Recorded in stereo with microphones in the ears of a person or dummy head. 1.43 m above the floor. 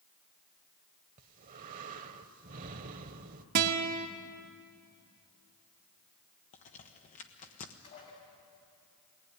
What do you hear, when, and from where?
1.2 s breathing: 45° right (ahead or behind), 1.0 m
3.5 s a guitar: 45° right (ahead or behind), 1.3 m
6.5 s a crack: 40° left (ahead or behind), 1.3 m
7.8 s dishes clattering: 40° left (ahead or behind), 5.5 m